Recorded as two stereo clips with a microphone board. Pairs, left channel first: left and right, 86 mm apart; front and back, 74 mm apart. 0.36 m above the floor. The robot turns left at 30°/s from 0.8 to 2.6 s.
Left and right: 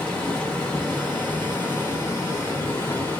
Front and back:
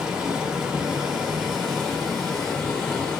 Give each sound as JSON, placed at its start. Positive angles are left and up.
{"t": 0.0, "sound": "running water", "azimuth_deg": 130, "distance_m": 1.0}